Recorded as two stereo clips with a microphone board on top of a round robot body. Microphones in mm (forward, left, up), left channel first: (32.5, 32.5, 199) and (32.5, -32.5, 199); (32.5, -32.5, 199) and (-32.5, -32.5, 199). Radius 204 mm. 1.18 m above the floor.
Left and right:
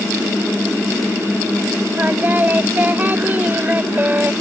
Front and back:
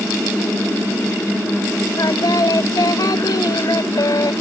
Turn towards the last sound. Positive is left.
turn(degrees=-30)